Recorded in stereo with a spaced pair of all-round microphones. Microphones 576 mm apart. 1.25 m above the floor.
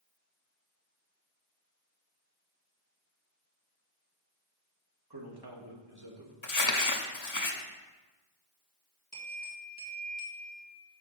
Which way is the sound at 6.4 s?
30° left (ahead or behind).